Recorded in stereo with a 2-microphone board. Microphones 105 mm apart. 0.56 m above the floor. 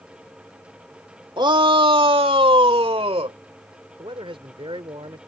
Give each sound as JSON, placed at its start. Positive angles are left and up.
{"t": 1.4, "sound": "a shout", "side_deg": -45}
{"t": 4.0, "sound": "a man speaking", "side_deg": -60}